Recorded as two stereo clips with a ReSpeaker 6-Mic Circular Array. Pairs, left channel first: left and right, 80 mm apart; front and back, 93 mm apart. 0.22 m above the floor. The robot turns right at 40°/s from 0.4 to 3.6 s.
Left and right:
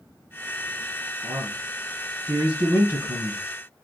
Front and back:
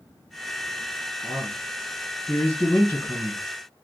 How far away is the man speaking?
About 1.4 m.